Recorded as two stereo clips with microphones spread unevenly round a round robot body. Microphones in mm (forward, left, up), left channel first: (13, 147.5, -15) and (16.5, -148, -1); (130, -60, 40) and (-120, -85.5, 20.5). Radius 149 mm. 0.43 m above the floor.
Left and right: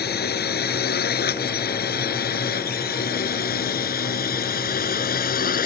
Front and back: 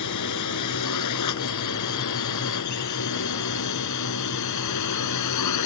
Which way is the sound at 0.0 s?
35° left.